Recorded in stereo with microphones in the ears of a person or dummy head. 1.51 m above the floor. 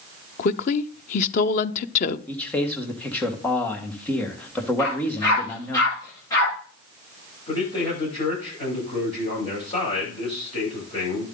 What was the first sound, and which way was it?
A woman speaking, 55° left (ahead or behind).